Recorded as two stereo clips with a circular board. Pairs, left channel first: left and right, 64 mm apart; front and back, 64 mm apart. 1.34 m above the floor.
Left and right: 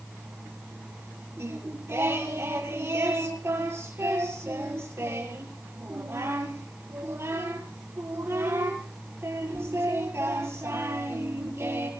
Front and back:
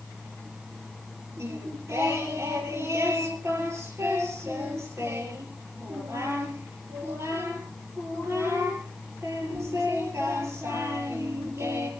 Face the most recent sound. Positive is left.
turn(degrees=-140)